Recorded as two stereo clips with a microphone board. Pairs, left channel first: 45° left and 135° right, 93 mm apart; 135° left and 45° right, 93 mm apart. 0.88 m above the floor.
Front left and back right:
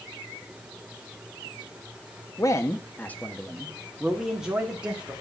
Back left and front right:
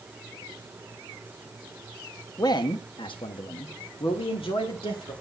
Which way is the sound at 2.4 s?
95° left.